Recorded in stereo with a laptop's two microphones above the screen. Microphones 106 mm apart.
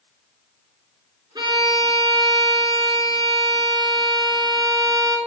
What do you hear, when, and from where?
1.4 s a violin: 40° right (ahead or behind), 2.5 m